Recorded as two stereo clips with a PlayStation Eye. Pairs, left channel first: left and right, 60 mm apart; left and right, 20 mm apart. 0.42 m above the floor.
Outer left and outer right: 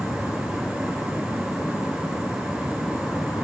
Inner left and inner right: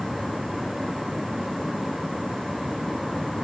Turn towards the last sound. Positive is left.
turn(degrees=60)  # may be behind; listen again after turning